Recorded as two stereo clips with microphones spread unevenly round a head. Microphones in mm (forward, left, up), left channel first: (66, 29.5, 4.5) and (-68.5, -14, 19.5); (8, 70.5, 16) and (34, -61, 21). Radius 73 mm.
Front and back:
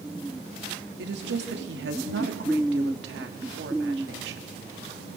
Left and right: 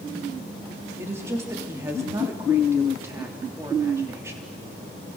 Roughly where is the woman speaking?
Behind right.